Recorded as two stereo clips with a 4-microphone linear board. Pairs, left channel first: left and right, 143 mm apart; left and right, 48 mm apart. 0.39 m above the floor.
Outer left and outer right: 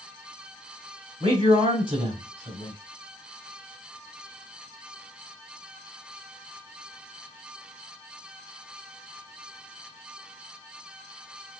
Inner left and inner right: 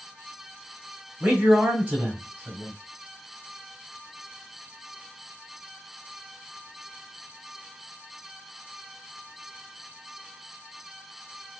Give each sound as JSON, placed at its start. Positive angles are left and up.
{"t": 1.2, "sound": "a man speaking", "side_deg": -35, "distance_m": 2.0}